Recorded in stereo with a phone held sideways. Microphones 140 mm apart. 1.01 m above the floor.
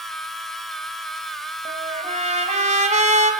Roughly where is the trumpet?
Right.